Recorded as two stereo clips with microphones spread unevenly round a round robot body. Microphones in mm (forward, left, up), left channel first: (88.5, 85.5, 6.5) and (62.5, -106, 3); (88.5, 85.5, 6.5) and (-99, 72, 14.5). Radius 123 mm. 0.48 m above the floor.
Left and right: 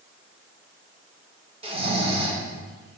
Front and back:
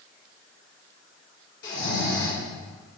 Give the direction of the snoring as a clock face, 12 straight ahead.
1 o'clock.